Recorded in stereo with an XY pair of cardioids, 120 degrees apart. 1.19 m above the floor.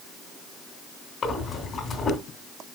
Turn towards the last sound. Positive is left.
turn(degrees=45)